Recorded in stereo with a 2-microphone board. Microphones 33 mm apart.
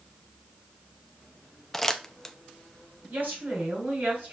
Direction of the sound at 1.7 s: 5° left (ahead or behind).